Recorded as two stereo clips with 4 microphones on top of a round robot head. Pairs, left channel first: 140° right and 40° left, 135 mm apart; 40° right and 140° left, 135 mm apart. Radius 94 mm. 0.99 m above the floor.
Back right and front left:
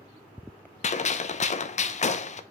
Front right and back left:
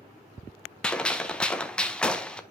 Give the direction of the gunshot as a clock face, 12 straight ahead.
4 o'clock.